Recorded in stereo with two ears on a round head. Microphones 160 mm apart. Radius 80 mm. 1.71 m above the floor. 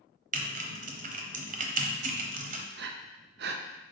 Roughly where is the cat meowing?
I don't hear a cat meowing.